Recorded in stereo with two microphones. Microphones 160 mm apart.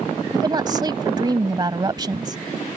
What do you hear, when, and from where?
0.3 s a woman speaking: 30° right (ahead or behind)